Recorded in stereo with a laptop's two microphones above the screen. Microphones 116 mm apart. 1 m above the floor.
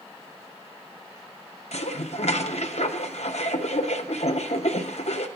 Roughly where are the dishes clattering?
Left.